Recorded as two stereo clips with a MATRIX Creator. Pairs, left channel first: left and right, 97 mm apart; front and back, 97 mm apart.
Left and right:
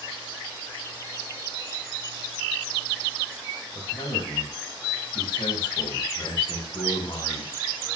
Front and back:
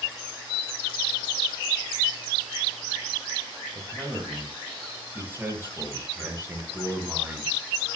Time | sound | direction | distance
3.8 | a man speaking | 110° left | 10 m